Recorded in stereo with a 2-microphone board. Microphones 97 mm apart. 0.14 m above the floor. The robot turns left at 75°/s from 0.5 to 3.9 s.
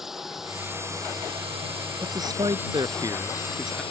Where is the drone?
5° right; by 3.9 s 100° left.